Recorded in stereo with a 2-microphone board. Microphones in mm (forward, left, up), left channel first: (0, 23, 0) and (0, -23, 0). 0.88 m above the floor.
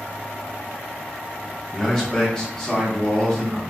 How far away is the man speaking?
About 1.1 m.